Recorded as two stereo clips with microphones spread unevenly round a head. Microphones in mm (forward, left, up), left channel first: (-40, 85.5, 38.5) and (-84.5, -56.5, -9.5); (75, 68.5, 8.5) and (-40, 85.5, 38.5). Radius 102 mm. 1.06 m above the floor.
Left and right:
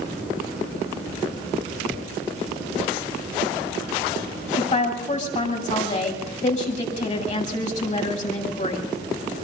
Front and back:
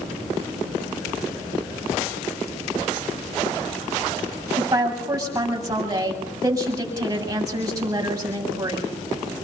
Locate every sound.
4.6 s a woman speaking: 110° left, 8.5 m